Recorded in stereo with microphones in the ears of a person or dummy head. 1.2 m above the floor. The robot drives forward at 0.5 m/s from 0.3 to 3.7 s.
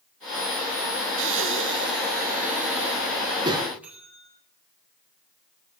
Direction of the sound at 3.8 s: 15° right (ahead or behind).